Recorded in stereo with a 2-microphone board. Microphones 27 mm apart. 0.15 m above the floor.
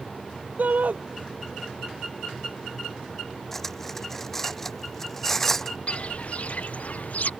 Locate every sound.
0.6 s a shout: 75° right (ahead or behind)
3.5 s cutlery clinking: 15° left (ahead or behind)
5.9 s footsteps: 45° left (ahead or behind); by 7.3 s 60° left (ahead or behind)